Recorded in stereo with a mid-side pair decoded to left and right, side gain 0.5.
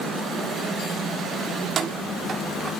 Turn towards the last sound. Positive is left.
turn(degrees=-40)